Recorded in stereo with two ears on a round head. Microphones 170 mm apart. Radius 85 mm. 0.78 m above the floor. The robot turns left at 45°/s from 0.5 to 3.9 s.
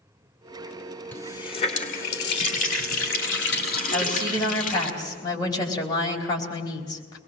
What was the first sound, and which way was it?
A running tap, 170° left.